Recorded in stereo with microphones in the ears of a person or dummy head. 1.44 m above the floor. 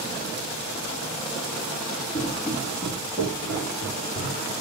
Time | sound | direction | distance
2.1 | footsteps | 20° left (ahead or behind) | 3 m